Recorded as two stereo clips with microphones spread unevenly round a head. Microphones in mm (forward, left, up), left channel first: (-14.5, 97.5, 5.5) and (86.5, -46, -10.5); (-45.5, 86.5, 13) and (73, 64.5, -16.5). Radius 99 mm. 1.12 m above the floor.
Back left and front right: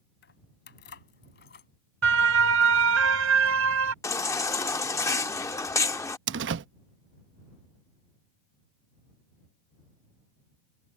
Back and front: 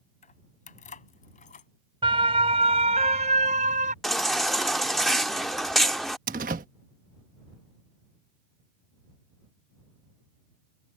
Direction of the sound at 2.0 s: 80° right.